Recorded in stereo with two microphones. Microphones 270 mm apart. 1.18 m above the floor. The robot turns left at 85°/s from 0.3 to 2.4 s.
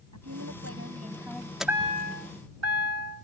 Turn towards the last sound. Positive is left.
turn(degrees=-70)